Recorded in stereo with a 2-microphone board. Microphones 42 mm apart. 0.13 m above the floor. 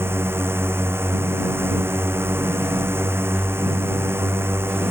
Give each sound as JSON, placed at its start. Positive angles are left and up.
{"t": 0.0, "sound": "a drone", "side_deg": -70}